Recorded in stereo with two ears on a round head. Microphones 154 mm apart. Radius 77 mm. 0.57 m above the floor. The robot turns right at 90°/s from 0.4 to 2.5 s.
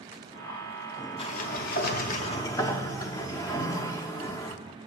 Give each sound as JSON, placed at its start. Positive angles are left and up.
{"t": 1.2, "sound": "a sliding door", "azimuth_deg": 40, "distance_m": 0.5}